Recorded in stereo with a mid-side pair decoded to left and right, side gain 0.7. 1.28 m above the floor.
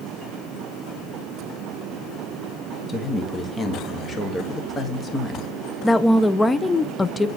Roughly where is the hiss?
I don't hear a hiss.